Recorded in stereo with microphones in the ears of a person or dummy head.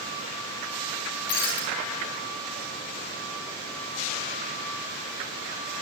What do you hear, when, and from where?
1.3 s breaking glass: 50° left (ahead or behind), 5.5 m